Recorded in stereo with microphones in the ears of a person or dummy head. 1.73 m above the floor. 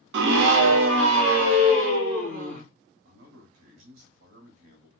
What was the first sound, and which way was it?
A scream, 65° right (ahead or behind).